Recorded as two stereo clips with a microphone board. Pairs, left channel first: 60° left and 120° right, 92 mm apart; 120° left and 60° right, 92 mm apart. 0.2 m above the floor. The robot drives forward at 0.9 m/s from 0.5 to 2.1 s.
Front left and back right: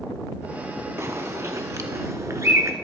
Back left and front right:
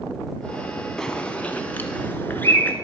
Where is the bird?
160° right, 0.9 m; by 2.7 s 170° right, 1.7 m.